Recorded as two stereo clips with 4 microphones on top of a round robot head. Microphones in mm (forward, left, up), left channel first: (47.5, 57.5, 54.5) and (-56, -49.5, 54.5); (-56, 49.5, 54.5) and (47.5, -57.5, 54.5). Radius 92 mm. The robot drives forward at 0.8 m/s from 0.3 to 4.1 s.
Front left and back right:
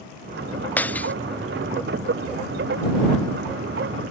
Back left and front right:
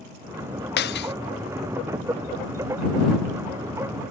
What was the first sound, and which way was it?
Breaking glass, 125° left.